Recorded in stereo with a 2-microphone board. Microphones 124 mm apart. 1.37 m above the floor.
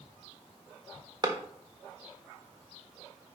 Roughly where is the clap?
Right.